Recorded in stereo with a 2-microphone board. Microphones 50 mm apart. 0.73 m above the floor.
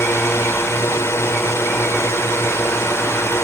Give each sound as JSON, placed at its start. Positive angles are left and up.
{"t": 0.0, "sound": "a drone", "side_deg": 60}